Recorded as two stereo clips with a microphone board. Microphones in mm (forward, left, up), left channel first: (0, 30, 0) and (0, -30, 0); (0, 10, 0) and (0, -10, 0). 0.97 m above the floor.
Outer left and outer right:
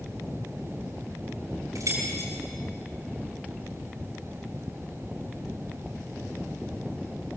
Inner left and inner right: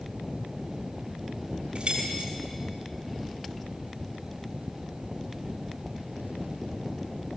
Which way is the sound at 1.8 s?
75° right (ahead or behind).